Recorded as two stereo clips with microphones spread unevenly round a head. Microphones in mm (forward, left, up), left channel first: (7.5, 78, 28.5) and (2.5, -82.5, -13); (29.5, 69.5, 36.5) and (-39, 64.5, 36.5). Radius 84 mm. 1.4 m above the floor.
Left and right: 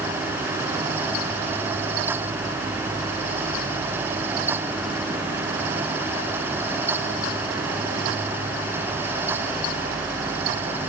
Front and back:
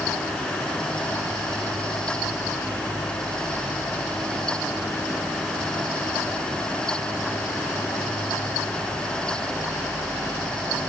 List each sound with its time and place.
Only background noise.